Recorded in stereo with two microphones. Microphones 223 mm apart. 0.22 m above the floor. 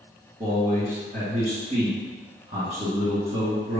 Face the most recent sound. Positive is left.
turn(degrees=-35)  # may be behind; listen again after turning